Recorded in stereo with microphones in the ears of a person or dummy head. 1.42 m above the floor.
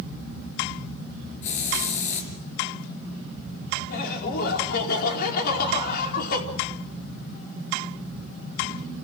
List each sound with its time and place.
1.4 s a hiss: 45° left (ahead or behind), 5 m
3.9 s laughter: 55° left (ahead or behind), 4.5 m